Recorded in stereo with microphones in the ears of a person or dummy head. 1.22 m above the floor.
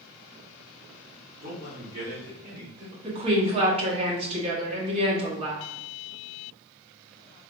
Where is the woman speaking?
30° right (ahead or behind), 1.0 m.